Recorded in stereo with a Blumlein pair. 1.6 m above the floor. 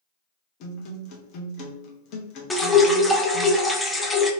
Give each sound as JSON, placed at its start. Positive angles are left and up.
{"t": 0.6, "sound": "a guitar", "azimuth_deg": 40, "distance_m": 0.9}
{"t": 2.5, "sound": "dripping", "azimuth_deg": 10, "distance_m": 0.5}